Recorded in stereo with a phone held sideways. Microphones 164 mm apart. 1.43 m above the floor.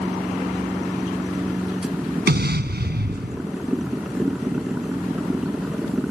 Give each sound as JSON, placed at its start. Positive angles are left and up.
{"t": 0.0, "sound": "a machine running", "side_deg": -5}
{"t": 2.3, "sound": "an explosion", "side_deg": -80}